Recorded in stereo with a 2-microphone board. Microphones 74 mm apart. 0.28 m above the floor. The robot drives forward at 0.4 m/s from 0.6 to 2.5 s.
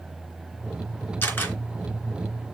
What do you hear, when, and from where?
1.2 s a camera shutter: 25° left (ahead or behind), 3 m